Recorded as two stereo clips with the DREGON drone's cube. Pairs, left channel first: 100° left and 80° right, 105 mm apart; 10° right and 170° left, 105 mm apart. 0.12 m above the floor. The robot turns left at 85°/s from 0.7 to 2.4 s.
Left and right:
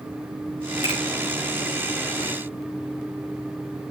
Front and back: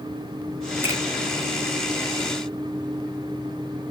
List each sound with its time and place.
0.8 s a finger snap: 120° right, 6 m; by 1.0 s 135° right, 6 m